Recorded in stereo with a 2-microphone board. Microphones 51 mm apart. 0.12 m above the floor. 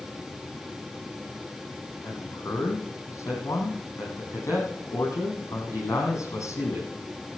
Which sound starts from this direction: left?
A man speaking, at 2.0 s.